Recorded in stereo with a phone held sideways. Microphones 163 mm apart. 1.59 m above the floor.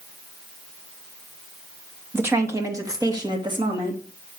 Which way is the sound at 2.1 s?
15° right (ahead or behind).